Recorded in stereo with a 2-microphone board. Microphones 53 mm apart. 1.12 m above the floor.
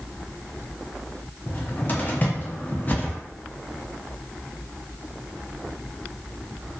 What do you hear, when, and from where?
1.5 s a cupboard door: 35° left (ahead or behind), 0.6 m